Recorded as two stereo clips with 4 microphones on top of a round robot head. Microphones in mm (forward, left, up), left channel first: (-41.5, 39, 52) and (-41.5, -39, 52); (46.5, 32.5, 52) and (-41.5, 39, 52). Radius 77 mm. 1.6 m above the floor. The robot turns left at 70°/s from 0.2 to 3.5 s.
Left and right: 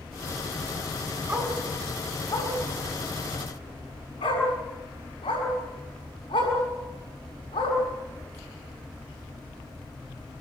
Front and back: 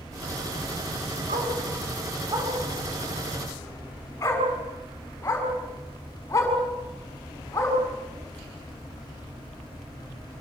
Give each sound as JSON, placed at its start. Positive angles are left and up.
{"t": 1.3, "sound": "a dog barking", "azimuth_deg": -150, "distance_m": 7.0}